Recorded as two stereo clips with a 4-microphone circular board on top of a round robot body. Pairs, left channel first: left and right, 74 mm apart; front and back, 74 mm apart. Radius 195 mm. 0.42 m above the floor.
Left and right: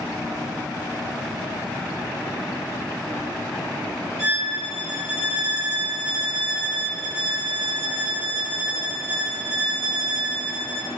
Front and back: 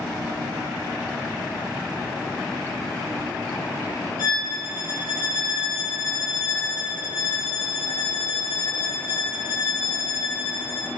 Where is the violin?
40° left, 4.5 m.